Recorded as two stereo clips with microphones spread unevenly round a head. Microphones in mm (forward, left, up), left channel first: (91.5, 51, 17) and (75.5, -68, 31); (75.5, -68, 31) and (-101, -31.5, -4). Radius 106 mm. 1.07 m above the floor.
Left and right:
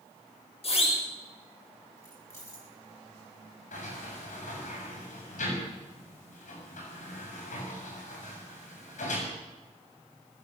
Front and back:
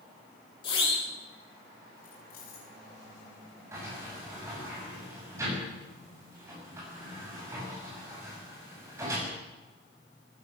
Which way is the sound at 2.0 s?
15° left.